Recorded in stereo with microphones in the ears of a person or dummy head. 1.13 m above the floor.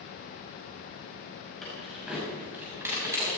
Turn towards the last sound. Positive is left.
turn(degrees=-15)  # may be behind; listen again after turning